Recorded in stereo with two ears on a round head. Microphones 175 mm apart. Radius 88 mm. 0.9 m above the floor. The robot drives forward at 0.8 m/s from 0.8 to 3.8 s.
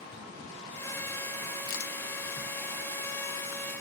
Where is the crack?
75° left (ahead or behind), 1.6 m.